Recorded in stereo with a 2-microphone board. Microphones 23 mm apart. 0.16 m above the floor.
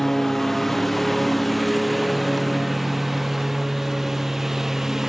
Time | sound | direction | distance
0.0 | a lawn mower | 10° left (ahead or behind) | ?